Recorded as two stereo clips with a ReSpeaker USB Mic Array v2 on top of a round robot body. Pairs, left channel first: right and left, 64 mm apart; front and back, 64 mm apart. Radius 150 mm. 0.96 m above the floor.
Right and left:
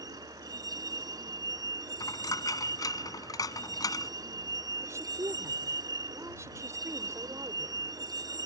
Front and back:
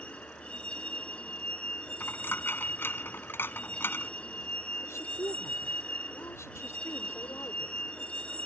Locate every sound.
0.0 s a vehicle: 70° left
2.0 s a dropped coin: 60° right
4.8 s a woman speaking: 45° left